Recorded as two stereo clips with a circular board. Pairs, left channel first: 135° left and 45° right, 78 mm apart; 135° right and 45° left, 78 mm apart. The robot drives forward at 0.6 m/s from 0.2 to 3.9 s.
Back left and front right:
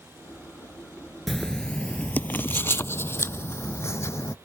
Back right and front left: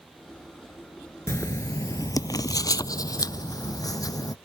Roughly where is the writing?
Behind right.